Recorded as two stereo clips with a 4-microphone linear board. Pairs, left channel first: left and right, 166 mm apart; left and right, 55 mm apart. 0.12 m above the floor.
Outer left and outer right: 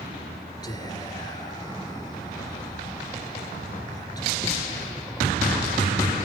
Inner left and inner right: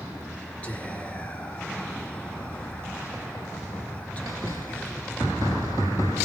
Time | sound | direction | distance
0.6 | whispering | 25° left (ahead or behind) | 1.7 m